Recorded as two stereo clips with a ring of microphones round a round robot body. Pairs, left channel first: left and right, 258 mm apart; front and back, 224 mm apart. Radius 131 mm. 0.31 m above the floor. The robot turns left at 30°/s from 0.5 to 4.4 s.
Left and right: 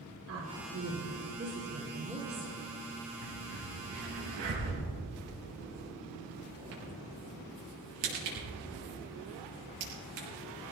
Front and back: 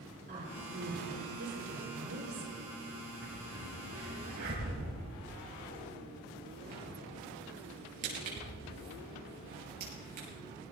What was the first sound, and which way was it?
A woman speaking, 125° right.